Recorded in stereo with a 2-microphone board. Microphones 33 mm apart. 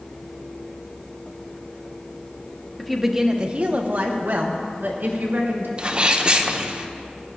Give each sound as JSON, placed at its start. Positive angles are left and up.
{"t": 2.8, "sound": "a woman speaking", "side_deg": 10, "distance_m": 1.0}
{"t": 5.8, "sound": "a sneeze", "side_deg": -30, "distance_m": 0.8}